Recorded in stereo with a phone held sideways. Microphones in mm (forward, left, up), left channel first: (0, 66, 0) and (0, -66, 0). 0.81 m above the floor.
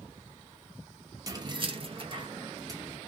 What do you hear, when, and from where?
1.3 s keys jangling: 25° right (ahead or behind), 0.6 m; by 3.0 s 20° right (ahead or behind), 1.1 m